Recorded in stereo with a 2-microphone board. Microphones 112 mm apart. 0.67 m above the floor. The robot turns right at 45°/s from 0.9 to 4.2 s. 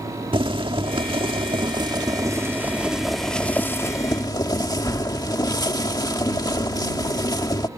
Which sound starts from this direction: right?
Boiling, at 0.3 s.